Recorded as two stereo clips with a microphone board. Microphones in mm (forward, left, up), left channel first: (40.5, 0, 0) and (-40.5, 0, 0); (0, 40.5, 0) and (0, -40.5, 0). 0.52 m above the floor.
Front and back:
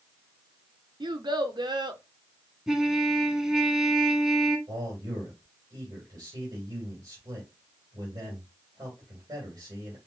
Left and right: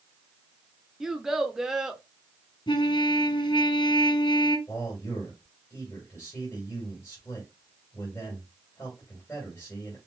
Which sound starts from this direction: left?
A trumpet, at 2.7 s.